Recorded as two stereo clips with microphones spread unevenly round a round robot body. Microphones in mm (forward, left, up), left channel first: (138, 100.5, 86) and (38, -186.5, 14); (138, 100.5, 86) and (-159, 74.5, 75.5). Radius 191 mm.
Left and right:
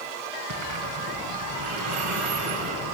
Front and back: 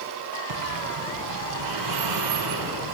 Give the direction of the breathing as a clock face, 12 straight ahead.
5 o'clock.